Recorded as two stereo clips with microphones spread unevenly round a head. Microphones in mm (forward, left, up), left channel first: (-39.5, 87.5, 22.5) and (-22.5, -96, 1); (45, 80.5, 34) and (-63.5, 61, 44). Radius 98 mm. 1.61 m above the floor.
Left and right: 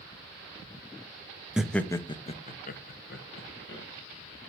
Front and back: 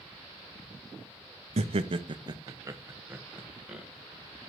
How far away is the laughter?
About 0.7 m.